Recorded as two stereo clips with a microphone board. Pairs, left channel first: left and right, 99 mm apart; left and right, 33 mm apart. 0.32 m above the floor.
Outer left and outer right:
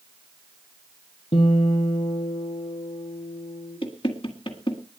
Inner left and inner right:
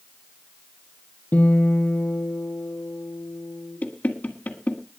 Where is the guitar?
75° left (ahead or behind), 2.5 m.